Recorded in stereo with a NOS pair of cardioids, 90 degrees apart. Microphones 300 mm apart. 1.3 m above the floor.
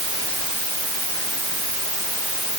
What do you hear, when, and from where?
Only background noise.